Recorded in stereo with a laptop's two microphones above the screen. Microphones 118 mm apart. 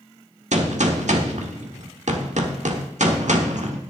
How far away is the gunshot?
About 1.2 m.